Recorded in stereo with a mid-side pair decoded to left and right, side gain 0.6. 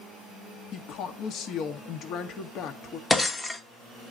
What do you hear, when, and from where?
0.7 s a woman speaking: 60° left, 1.2 m
3.1 s breaking glass: 15° left, 1.0 m